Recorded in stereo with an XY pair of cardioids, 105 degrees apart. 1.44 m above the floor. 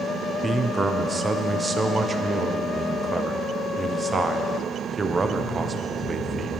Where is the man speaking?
20° right, 0.6 m.